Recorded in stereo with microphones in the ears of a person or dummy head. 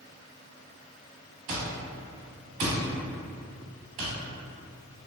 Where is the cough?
No cough in this recording.